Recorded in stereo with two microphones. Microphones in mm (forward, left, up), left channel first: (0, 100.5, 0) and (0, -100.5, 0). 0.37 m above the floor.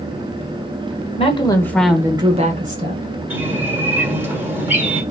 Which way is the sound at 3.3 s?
10° right (ahead or behind).